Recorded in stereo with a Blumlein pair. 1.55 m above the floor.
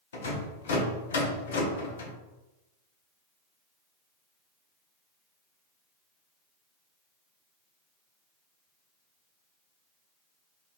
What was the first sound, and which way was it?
A rattle, 65° left.